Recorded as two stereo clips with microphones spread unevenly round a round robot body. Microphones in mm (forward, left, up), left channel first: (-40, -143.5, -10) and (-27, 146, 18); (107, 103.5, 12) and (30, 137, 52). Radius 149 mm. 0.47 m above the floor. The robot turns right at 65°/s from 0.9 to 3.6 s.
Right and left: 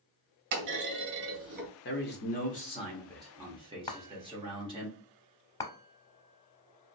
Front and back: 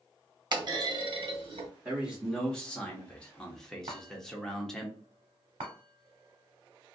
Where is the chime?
175° right, 0.6 m.